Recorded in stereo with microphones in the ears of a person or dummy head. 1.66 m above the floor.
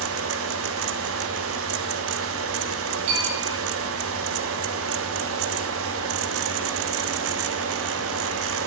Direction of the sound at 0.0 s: 65° right (ahead or behind).